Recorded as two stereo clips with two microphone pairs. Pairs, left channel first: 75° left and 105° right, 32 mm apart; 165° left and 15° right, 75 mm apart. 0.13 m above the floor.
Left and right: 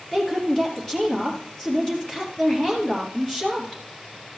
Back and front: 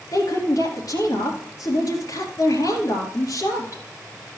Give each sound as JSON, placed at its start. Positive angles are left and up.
{"t": 0.1, "sound": "a woman speaking", "azimuth_deg": 145, "distance_m": 2.5}